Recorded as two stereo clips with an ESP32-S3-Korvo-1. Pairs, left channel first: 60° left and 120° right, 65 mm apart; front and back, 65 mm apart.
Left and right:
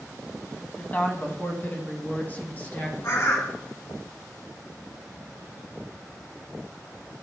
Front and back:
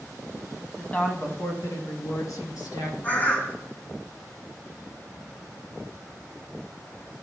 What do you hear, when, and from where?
0.8 s a woman speaking: 55° left, 1.1 m; by 3.5 s 5° right, 3.5 m
3.0 s a bird: 50° left, 1.3 m